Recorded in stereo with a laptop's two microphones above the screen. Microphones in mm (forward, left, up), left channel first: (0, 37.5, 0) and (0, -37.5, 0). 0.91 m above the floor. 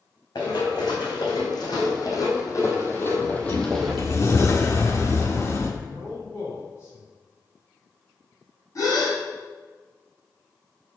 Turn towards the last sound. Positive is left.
turn(degrees=50)  # may be behind; listen again after turning